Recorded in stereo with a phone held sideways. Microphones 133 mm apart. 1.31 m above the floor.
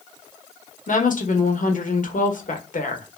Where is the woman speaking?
80° left, 1.0 m.